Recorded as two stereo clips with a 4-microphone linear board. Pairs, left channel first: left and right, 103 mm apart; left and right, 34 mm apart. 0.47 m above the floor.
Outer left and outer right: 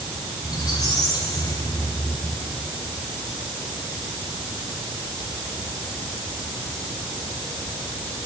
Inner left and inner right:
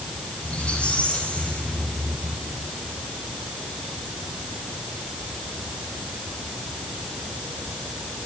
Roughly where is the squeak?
Left.